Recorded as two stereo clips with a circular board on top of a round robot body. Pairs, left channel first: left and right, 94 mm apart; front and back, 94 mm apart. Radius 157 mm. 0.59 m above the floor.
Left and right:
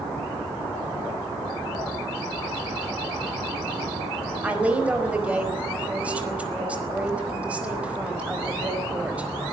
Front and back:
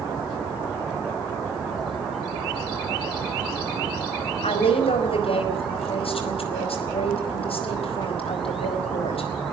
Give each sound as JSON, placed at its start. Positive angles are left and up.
{"t": 4.4, "sound": "a woman speaking", "azimuth_deg": -10, "distance_m": 4.5}